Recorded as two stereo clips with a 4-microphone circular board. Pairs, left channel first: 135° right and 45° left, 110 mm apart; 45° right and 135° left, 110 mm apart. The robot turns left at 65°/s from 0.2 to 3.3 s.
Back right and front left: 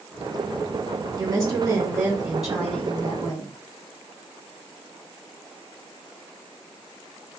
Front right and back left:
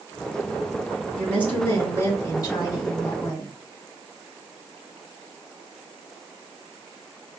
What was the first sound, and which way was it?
A woman speaking, 40° left.